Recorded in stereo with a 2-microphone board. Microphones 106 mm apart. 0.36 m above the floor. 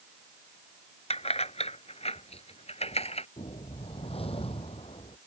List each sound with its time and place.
1.1 s keys jangling: 75° left (ahead or behind)
3.4 s a whoosh: 65° left (ahead or behind)